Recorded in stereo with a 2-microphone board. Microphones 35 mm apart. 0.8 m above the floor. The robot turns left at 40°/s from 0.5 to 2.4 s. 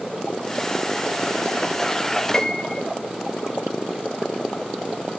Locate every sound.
2.3 s a piano: 15° left (ahead or behind), 1.2 m; by 2.8 s 20° left (ahead or behind), 1.2 m